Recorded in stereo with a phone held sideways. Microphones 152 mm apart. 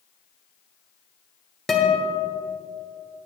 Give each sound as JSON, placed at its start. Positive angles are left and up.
{"t": 1.7, "sound": "a guitar", "side_deg": 0, "distance_m": 1.4}